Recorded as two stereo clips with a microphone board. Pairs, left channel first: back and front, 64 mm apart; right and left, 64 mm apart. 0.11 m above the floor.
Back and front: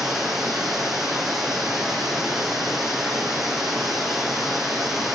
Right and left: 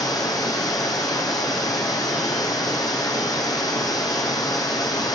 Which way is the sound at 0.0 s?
85° right.